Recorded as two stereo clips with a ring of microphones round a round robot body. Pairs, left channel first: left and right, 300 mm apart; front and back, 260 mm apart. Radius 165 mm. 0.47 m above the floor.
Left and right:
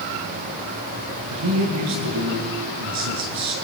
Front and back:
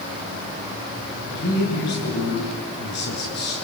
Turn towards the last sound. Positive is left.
turn(degrees=-55)